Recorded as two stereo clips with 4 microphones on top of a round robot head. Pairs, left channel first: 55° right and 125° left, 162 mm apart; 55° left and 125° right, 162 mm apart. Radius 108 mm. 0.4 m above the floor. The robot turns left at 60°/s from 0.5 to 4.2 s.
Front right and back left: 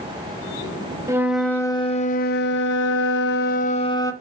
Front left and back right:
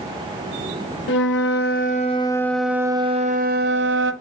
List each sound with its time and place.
1.1 s a flute: 55° left, 0.7 m; by 4.1 s 130° right, 0.7 m